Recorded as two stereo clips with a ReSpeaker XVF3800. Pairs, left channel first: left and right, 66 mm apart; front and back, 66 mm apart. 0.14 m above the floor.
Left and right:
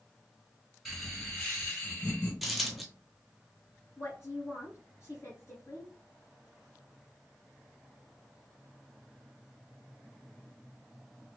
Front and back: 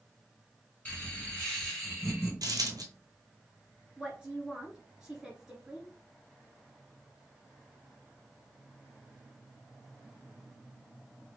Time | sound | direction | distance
0.8 | laughter | 5° right | 1.6 m
2.4 | a dropped coin | straight behind | 0.8 m
4.0 | a woman speaking | 110° left | 1.9 m